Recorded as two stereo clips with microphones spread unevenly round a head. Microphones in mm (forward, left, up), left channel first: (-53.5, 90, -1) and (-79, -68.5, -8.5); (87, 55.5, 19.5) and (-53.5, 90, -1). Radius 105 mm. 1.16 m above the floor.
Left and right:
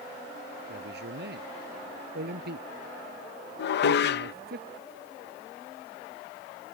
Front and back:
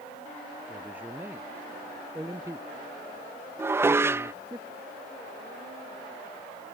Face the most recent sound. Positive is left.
turn(degrees=90)